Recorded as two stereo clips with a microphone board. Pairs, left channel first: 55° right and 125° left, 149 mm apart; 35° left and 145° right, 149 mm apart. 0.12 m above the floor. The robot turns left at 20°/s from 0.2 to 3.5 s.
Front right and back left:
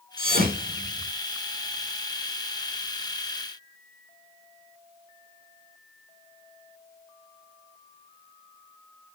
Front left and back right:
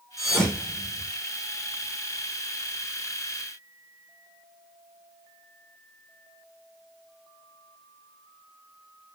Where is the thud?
125° left, 3.5 m; by 1.1 s 105° left, 3.5 m.